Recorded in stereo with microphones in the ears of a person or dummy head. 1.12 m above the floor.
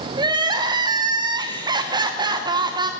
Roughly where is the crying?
Right.